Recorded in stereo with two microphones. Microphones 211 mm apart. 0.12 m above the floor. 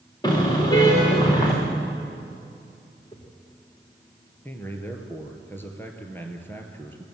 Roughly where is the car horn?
Centre.